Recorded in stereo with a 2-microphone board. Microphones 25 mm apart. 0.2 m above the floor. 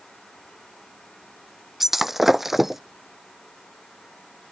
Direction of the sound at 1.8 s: 10° right (ahead or behind).